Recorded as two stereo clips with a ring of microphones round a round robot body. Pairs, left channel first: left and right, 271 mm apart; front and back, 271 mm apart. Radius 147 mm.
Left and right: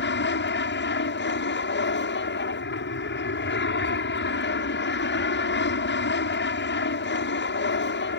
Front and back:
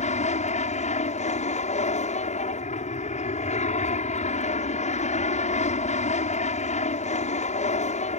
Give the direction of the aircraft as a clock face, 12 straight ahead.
10 o'clock.